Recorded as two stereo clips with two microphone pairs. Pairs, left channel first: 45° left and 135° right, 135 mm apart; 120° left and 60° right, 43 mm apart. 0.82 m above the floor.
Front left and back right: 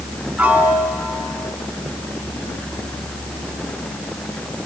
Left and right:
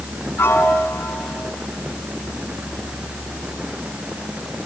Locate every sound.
0.4 s a piano: 145° left, 4.5 m